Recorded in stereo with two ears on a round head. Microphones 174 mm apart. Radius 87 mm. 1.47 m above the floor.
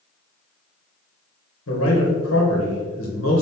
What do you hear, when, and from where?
1.7 s a man speaking: 80° left, 1.4 m